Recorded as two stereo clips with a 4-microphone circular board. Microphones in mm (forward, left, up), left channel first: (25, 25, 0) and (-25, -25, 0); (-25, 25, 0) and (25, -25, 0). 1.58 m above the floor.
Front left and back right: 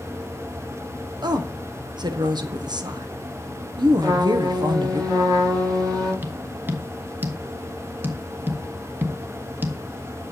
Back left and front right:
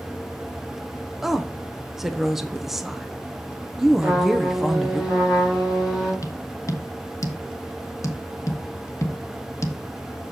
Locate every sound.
1.2 s a woman speaking: 130° right, 0.9 m
4.0 s a trumpet: 125° right, 5 m
6.2 s tapping: 170° left, 1.2 m